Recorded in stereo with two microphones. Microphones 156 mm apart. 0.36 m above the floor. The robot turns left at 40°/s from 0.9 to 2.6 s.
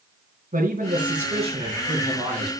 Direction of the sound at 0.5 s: 115° right.